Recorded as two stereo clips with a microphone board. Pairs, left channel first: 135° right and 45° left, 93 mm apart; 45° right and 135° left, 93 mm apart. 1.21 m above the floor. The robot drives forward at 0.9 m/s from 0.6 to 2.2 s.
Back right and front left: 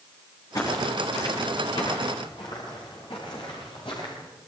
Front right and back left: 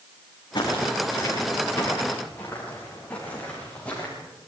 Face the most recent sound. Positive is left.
turn(degrees=-120)